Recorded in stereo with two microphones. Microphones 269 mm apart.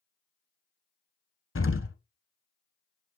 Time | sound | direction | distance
1.6 | an explosion | 50° left (ahead or behind) | 0.8 m